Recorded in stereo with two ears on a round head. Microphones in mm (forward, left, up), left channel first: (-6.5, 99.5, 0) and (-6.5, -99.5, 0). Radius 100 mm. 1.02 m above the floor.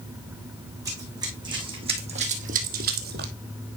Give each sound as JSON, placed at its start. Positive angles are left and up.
{"t": 0.8, "sound": "running footsteps", "side_deg": -15, "distance_m": 3.0}